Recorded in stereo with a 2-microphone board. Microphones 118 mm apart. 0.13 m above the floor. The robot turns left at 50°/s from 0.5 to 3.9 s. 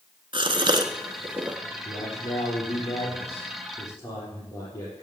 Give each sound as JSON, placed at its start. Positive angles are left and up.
{"t": 0.3, "sound": "a gasp", "side_deg": -45, "distance_m": 0.9}
{"t": 1.9, "sound": "a man speaking", "azimuth_deg": 125, "distance_m": 4.0}